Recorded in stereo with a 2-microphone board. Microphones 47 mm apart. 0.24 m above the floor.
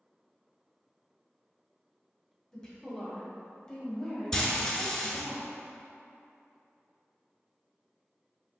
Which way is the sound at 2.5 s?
15° left (ahead or behind).